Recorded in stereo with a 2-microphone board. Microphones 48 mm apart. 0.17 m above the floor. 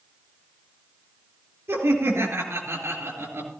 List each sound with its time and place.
1.7 s laughter: 65° right (ahead or behind), 3.5 m